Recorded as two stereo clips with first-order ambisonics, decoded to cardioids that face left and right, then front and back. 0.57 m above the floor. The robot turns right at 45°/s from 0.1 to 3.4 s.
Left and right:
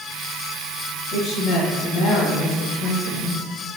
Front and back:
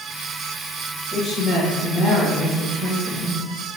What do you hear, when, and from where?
1.1 s a woman speaking: 45° left, 3.5 m; by 3.4 s 145° left, 3.5 m